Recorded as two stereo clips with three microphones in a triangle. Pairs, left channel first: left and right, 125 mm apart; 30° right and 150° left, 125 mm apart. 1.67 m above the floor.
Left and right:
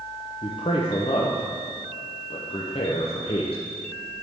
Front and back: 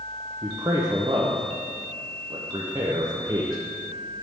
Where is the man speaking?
100° left, 0.7 m.